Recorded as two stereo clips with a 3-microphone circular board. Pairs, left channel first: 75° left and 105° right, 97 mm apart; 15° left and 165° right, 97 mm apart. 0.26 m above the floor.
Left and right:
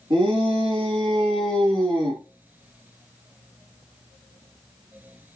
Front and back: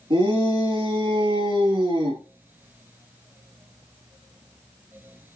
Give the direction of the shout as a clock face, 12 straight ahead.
5 o'clock.